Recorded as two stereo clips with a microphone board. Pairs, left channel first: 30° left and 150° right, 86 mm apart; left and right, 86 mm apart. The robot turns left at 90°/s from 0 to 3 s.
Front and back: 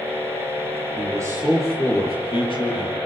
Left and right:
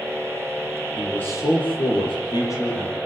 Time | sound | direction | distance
1.0 | a man speaking | straight behind | 8.5 m